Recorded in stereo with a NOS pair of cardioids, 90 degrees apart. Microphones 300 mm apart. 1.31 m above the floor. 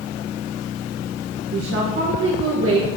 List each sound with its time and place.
1.5 s a woman speaking: 50° right, 1.6 m